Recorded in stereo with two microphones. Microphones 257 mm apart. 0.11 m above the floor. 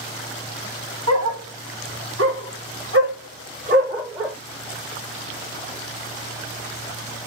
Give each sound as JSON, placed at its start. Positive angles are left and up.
{"t": 1.1, "sound": "a dog barking", "side_deg": -70, "distance_m": 1.9}